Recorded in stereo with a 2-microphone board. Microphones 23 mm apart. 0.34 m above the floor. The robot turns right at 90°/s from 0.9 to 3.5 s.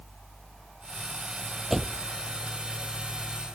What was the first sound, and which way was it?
A door slam, 165° right.